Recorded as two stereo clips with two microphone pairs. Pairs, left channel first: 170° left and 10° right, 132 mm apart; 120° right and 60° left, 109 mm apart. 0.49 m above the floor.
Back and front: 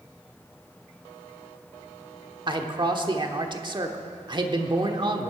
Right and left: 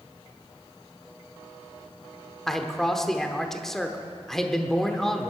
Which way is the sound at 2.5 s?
35° right.